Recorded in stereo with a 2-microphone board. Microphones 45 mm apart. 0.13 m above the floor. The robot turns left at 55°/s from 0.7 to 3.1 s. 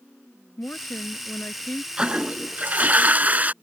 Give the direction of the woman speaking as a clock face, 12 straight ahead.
9 o'clock.